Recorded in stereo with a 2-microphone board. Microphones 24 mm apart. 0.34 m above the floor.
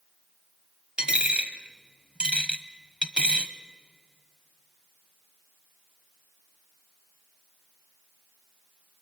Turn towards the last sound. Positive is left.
turn(degrees=-50)  # may be behind; listen again after turning